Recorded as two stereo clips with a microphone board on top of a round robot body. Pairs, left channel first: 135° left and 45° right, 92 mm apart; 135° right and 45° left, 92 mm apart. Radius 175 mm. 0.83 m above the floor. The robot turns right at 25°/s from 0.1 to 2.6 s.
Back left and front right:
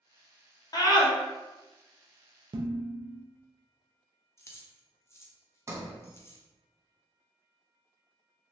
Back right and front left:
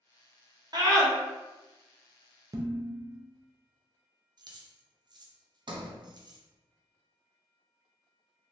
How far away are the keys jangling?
About 0.7 m.